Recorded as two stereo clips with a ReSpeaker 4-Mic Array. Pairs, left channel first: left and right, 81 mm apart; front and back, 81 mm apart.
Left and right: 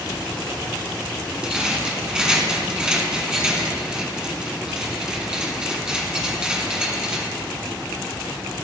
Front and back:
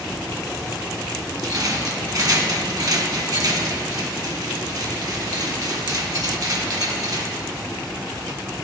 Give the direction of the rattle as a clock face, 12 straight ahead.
6 o'clock.